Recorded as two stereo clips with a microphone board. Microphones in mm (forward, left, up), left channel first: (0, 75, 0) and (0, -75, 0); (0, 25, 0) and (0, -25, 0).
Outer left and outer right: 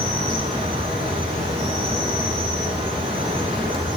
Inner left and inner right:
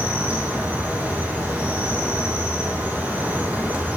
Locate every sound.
0.0 s an insect: 40° right (ahead or behind), 4.5 m